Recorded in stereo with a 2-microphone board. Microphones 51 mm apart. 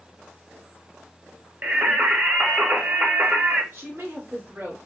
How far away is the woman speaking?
About 1.9 m.